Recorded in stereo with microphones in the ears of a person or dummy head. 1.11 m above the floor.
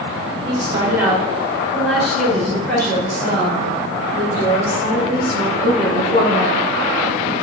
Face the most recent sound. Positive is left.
turn(degrees=50)  # may be behind; listen again after turning